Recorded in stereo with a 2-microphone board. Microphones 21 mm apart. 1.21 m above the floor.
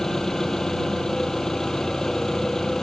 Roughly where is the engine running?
Centre.